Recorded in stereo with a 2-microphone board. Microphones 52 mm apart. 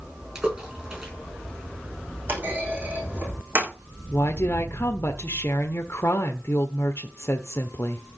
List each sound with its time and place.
0.3 s a splash: 15° right (ahead or behind), 7 m
2.3 s a clunk: 35° right (ahead or behind), 5 m
4.1 s a woman speaking: 55° left (ahead or behind), 1.2 m